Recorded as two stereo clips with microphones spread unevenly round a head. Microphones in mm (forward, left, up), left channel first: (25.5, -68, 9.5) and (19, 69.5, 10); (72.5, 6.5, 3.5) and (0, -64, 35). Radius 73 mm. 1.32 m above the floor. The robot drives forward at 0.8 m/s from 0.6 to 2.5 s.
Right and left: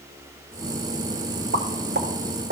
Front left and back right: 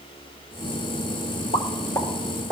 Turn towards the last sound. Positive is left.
turn(degrees=140)